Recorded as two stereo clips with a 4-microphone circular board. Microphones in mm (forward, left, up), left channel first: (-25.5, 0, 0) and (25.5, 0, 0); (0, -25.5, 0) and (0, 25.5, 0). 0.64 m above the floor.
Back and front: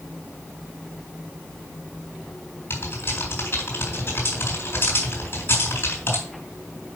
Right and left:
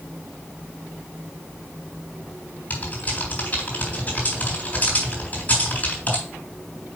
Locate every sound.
2.7 s typing on a keyboard: 145° right, 4 m